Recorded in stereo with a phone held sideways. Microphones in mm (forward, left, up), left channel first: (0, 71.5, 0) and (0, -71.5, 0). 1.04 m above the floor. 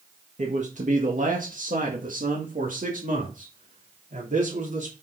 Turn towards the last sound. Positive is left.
turn(degrees=-65)  # may be behind; listen again after turning